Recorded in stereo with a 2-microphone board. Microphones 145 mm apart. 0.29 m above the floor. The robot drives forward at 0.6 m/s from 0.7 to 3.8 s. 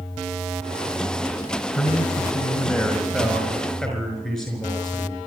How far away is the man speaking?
About 4 m.